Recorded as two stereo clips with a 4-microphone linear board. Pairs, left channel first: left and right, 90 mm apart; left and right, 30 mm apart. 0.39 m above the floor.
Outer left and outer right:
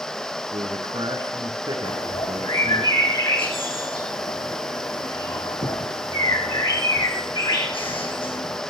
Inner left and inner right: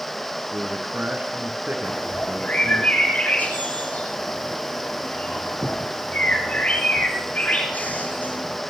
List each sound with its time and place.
0.5 s a man speaking: 60° right (ahead or behind), 4 m
1.8 s a bird: 85° left, 6 m